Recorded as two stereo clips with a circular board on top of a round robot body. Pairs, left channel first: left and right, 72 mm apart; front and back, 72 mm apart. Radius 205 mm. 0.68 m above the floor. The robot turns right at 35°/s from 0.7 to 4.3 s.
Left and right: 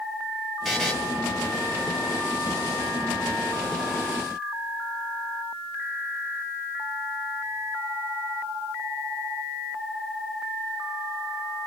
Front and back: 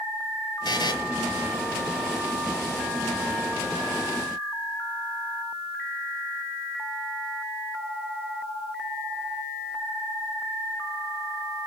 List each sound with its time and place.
0.7 s a buzzer: straight ahead, 1.2 m; by 0.9 s 10° left, 1.2 m